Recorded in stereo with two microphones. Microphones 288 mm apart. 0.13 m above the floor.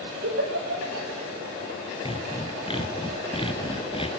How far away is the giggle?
About 3.5 m.